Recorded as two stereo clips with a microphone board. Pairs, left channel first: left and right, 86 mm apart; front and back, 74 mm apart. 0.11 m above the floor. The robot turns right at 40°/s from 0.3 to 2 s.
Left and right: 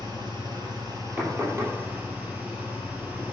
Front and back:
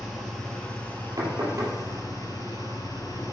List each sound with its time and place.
0.0 s an engine running: 90° right, 2.5 m; by 3.3 s 20° right, 2.5 m
1.2 s knocking: 160° right, 2.5 m; by 1.8 s 135° right, 2.5 m